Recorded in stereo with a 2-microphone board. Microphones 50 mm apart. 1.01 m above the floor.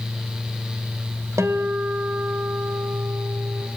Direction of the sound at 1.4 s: 70° right (ahead or behind).